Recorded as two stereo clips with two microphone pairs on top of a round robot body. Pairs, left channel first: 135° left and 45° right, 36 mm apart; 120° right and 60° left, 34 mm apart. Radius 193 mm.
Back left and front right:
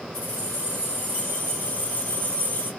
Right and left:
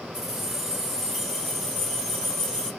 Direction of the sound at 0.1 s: 135° left.